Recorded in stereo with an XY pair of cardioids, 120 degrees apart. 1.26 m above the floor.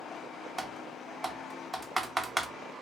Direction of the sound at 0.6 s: 15° right.